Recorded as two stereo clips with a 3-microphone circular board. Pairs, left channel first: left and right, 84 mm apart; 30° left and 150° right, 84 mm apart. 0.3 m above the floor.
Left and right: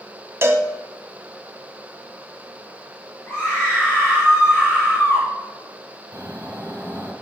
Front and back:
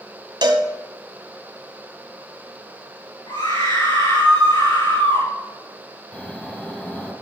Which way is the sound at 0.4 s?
145° right.